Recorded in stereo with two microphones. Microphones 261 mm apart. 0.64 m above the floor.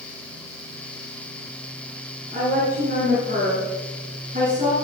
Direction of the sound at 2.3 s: 40° right (ahead or behind).